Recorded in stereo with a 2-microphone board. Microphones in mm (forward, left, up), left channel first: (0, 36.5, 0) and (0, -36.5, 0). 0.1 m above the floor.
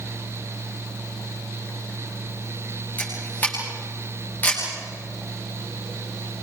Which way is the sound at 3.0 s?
25° left (ahead or behind).